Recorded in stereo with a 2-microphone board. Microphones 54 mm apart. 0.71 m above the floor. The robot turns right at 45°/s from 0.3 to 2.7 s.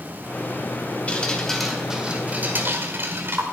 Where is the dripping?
155° left, 1.6 m; by 3.4 s 135° right, 1.6 m.